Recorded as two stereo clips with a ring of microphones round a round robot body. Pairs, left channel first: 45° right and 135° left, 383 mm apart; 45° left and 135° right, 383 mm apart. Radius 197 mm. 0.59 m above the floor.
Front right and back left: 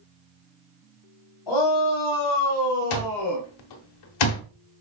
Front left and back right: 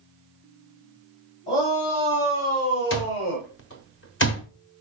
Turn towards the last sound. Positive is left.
turn(degrees=-15)